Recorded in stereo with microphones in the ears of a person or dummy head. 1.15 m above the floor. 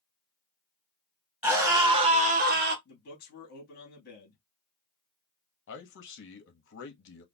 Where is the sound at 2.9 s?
50° left (ahead or behind), 2.5 m.